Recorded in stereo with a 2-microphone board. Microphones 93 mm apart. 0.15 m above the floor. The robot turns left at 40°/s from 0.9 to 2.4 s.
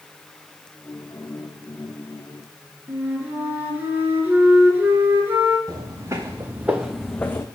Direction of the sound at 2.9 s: 25° right (ahead or behind).